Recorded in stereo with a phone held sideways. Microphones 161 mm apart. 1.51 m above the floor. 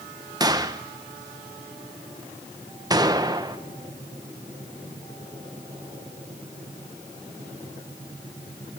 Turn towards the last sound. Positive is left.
turn(degrees=-25)  # may be behind; listen again after turning